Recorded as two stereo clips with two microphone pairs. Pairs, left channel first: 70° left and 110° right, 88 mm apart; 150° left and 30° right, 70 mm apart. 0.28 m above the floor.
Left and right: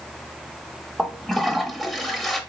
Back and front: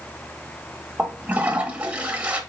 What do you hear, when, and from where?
1.0 s a toilet flushing: 15° right, 0.8 m